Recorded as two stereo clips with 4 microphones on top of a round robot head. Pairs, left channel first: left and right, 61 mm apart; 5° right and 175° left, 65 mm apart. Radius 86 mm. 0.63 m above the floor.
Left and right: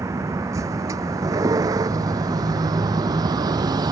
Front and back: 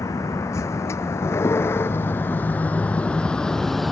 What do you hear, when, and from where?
0.0 s a vehicle: 45° right; by 3.9 s 90° right